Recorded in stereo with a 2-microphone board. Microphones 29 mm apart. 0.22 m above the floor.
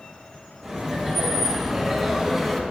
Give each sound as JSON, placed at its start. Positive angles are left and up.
{"t": 0.6, "sound": "laughter", "side_deg": -10, "distance_m": 3.5}